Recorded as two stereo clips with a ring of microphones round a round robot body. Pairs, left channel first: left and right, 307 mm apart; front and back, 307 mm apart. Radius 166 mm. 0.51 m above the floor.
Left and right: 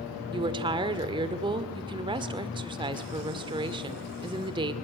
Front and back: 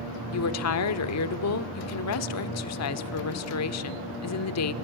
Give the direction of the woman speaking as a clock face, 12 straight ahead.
1 o'clock.